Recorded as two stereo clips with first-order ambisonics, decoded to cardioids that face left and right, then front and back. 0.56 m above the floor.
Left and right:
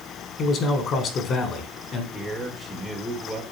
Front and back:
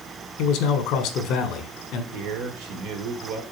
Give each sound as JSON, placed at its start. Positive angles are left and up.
{"t": 0.4, "sound": "a man speaking", "azimuth_deg": 35, "distance_m": 1.6}
{"t": 2.1, "sound": "a man speaking", "azimuth_deg": 180, "distance_m": 1.6}